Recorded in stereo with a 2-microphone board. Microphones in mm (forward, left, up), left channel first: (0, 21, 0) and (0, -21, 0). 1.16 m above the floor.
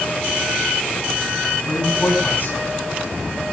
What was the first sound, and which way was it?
A man speaking, 55° left (ahead or behind).